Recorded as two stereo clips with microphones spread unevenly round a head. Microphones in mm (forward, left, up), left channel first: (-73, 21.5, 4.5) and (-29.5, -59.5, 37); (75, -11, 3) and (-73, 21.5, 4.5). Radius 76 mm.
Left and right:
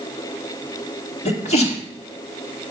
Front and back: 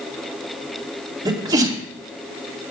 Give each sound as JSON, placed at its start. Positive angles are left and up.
{"t": 1.2, "sound": "a sneeze", "azimuth_deg": 100, "distance_m": 3.0}